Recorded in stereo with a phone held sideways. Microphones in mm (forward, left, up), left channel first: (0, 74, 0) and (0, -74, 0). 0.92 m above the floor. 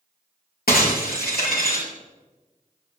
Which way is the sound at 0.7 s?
85° left.